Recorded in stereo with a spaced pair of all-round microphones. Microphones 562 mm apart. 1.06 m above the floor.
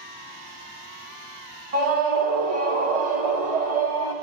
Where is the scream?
80° right, 1.0 m.